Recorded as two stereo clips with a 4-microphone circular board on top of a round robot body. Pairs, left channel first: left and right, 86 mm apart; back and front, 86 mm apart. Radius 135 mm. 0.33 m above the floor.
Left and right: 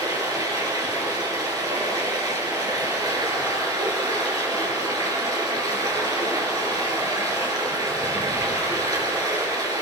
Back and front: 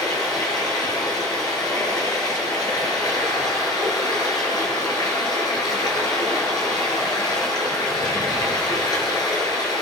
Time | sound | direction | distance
0.0 | running water | 135° right | 7 m